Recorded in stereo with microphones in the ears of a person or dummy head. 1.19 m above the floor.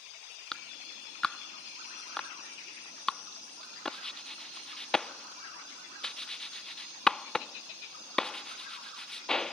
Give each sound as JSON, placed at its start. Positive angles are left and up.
{"t": 0.5, "sound": "a clap", "side_deg": 5}